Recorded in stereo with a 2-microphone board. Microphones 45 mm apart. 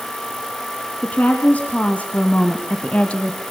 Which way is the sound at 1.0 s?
30° left (ahead or behind).